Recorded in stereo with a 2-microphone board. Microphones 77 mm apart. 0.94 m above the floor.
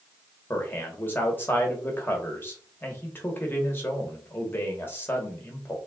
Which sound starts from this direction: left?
A man speaking, at 0.5 s.